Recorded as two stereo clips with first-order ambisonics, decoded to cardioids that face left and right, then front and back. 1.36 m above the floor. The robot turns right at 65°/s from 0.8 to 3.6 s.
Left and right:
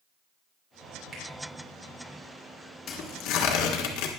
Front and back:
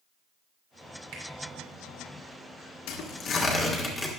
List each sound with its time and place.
1.1 s a finger snap: 160° right, 3.5 m; by 1.2 s 155° right, 3.5 m
2.9 s tearing paper: 25° left, 1.3 m; by 4.1 s 75° left, 1.3 m